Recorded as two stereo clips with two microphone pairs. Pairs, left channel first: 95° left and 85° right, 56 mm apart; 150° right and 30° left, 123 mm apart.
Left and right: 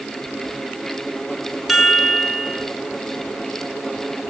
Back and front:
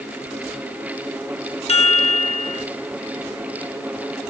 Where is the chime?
170° right, 0.9 m.